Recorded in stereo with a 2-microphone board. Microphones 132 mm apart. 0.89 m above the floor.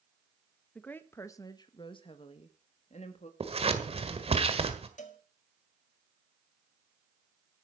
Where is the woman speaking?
10° left (ahead or behind), 1.1 m; by 3.3 s 60° left (ahead or behind), 1.8 m.